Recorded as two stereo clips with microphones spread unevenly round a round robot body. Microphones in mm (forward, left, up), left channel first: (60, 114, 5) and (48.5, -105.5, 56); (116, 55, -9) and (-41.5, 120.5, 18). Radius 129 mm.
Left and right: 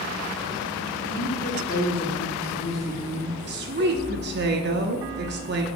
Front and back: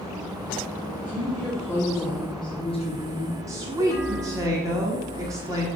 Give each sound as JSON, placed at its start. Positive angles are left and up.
{"t": 1.1, "sound": "a woman speaking", "azimuth_deg": 55, "distance_m": 2.0}
{"t": 3.5, "sound": "a woman speaking", "azimuth_deg": -125, "distance_m": 1.2}